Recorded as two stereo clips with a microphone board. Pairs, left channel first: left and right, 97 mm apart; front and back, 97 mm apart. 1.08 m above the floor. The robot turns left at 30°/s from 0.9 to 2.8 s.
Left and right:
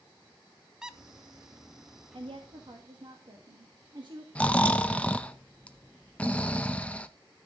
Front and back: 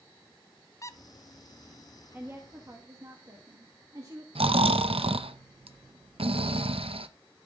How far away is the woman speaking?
About 1.5 m.